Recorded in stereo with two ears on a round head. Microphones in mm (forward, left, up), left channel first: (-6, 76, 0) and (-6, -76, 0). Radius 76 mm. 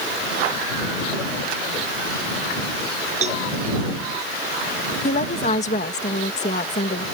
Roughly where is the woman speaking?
Left.